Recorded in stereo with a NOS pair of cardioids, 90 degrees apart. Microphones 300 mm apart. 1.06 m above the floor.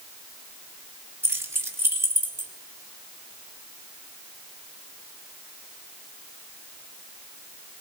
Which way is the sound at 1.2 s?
10° right.